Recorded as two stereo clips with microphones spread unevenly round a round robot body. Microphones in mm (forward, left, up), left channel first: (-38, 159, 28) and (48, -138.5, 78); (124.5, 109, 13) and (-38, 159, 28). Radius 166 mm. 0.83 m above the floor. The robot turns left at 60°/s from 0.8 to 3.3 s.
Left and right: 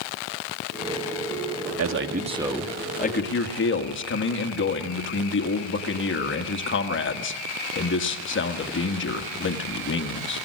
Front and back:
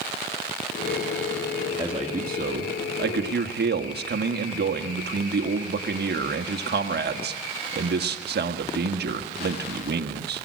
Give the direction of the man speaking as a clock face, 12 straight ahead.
4 o'clock.